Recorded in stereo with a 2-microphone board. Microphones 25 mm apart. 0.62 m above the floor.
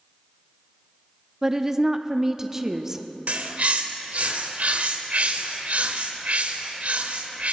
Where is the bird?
70° right (ahead or behind), 1.0 m.